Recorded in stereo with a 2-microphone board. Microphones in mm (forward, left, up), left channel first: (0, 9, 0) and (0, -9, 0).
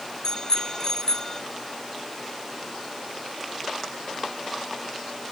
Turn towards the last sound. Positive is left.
turn(degrees=30)  # may be behind; listen again after turning